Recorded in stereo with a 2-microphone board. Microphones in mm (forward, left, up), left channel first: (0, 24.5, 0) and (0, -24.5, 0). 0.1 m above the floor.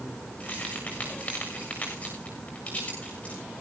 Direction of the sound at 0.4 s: 30° left (ahead or behind).